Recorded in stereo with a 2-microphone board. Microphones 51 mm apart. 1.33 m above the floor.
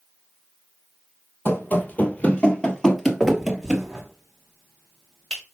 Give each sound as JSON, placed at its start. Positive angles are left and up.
{"t": 1.4, "sound": "running footsteps", "side_deg": 45, "distance_m": 1.7}
{"t": 3.2, "sound": "a finger snap", "side_deg": 15, "distance_m": 3.0}